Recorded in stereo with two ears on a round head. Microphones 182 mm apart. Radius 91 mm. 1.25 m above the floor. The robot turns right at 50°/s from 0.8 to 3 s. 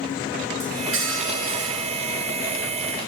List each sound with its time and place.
0.6 s cutlery clinking: 115° right, 9 m; by 2.1 s 50° right, 9 m